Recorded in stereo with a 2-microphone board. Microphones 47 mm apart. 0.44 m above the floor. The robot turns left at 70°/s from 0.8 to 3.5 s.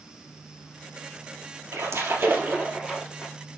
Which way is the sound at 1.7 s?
85° right.